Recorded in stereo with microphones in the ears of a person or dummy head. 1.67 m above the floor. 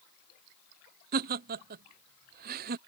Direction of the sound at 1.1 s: 50° right (ahead or behind).